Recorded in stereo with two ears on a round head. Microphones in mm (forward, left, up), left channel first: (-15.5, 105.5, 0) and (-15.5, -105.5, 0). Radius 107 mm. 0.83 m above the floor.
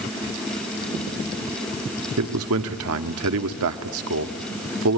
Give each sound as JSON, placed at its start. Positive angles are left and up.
{"t": 2.2, "sound": "a man speaking", "side_deg": -70, "distance_m": 1.5}